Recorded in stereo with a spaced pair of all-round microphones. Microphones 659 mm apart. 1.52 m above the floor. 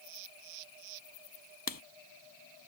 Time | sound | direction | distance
1.7 | writing | 30° left (ahead or behind) | ?